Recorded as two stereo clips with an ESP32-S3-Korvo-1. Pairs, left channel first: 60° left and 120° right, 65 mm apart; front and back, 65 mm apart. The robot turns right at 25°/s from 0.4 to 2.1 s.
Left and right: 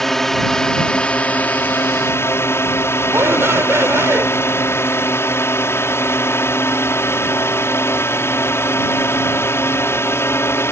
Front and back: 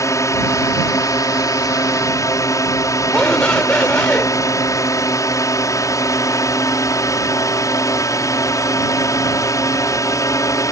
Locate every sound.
0.0 s a drone: 25° right; by 10.7 s 20° left
3.1 s a shout: 75° right